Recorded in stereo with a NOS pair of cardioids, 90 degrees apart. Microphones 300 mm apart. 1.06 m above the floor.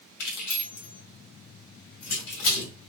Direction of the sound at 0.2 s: 70° left.